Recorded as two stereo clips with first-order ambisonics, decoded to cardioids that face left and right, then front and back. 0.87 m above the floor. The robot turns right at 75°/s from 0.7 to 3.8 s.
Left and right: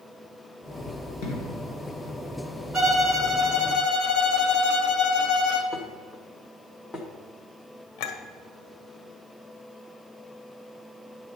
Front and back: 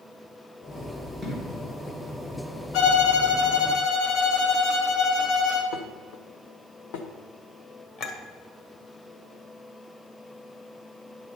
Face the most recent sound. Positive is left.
turn(degrees=60)